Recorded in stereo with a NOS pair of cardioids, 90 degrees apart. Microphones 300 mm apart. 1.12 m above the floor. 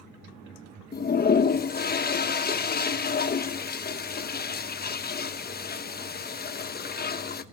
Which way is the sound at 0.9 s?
30° left.